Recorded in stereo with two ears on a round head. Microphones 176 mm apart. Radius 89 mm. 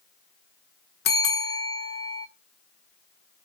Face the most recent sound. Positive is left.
turn(degrees=55)  # may be behind; listen again after turning